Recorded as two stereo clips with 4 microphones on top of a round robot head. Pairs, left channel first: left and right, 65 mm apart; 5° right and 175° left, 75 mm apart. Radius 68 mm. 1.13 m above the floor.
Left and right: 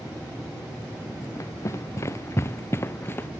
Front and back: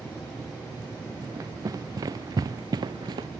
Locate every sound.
1.2 s running footsteps: 130° left; by 3.3 s 145° left